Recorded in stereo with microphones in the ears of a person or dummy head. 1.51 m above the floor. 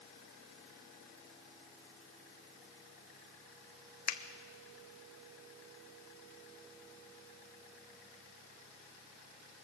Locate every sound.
4.1 s a finger snap: 50° left (ahead or behind), 0.7 m